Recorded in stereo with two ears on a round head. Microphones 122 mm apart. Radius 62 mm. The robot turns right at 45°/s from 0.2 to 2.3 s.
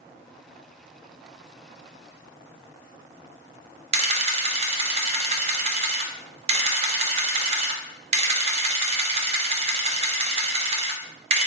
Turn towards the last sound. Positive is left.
turn(degrees=-40)  # may be behind; listen again after turning